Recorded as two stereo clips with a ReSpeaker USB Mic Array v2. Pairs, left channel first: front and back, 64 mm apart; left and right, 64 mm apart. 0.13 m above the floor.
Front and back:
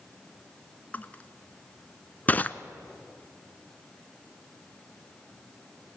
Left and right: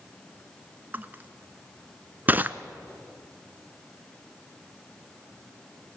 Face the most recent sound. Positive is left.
turn(degrees=-45)